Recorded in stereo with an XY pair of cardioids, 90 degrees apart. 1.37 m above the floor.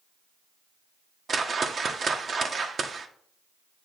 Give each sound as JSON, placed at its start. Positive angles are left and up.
{"t": 1.3, "sound": "a whoosh", "azimuth_deg": -45, "distance_m": 0.9}